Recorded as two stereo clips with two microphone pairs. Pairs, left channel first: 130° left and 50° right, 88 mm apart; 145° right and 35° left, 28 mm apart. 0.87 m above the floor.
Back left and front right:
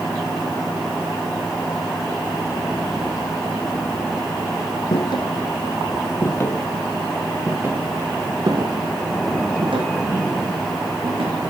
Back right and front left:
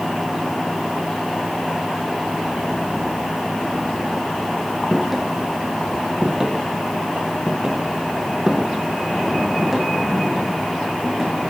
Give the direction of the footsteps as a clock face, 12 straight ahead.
8 o'clock.